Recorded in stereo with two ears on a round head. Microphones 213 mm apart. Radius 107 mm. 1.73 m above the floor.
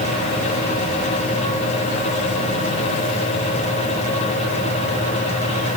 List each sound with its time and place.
Only background noise.